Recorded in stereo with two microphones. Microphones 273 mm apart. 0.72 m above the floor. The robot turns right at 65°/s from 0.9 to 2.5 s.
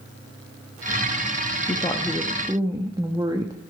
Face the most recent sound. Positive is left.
turn(degrees=-160)